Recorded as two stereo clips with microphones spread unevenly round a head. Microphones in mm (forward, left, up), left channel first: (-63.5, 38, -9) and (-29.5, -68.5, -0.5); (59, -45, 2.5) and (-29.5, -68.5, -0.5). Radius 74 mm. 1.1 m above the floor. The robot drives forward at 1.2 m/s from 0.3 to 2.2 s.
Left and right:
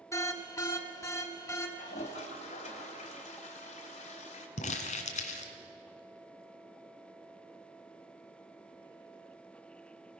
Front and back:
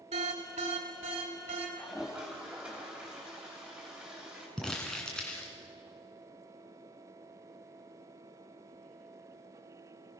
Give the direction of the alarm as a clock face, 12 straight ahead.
6 o'clock.